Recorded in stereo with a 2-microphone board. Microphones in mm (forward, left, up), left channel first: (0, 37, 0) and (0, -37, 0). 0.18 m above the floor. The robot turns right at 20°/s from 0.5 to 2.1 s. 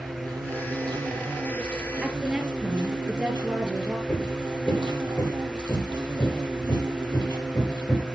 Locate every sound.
0.0 s an insect: 115° right, 4 m; by 8.2 s 80° right, 4 m
2.0 s a woman speaking: 10° right (ahead or behind), 3.5 m
4.1 s hammering: 25° left (ahead or behind), 4 m